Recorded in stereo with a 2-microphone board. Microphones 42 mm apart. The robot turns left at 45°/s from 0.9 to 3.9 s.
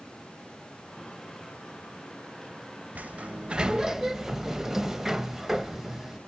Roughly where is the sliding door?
Behind right.